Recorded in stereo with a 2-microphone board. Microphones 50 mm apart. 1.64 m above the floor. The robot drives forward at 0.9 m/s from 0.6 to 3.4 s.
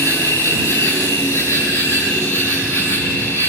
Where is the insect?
70° left (ahead or behind), 7 m; by 3.5 s 55° left (ahead or behind), 8.5 m.